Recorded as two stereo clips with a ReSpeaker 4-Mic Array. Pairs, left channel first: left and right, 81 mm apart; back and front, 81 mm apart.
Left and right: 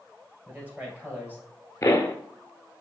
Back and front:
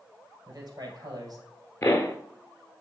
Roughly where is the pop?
Behind left.